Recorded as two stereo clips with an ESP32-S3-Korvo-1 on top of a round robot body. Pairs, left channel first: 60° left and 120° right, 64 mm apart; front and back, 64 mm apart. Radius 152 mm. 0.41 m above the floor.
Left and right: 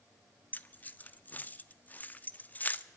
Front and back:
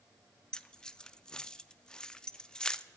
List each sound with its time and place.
0.5 s keys jangling: 65° left, 0.5 m